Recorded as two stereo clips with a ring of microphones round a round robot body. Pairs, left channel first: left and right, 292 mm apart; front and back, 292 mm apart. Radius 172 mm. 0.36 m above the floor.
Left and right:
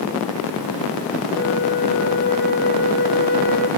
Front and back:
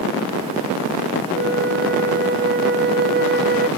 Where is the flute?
135° left, 2 m.